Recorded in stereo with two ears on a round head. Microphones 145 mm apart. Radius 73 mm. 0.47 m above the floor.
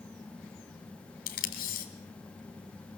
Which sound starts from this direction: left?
Tape being pulled, at 1.3 s.